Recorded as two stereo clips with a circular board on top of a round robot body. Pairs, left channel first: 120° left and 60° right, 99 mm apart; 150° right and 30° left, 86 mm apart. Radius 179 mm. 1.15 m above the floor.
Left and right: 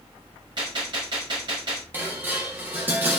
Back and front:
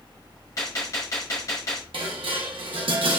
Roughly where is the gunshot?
Right.